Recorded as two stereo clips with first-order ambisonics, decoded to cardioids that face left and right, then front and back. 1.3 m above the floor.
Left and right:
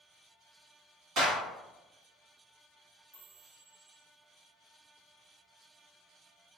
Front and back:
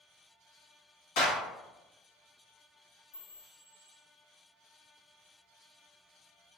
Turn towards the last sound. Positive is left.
turn(degrees=0)